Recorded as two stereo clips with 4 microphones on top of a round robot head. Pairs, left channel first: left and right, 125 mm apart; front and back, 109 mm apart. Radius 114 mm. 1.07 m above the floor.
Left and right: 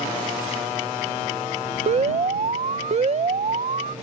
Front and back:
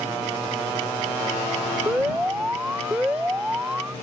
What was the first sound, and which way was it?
An alarm, 105° right.